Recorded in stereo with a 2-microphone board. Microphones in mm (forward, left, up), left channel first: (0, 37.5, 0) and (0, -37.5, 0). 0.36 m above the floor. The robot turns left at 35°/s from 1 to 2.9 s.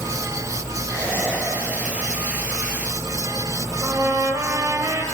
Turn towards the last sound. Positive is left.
turn(degrees=-40)  # may be behind; listen again after turning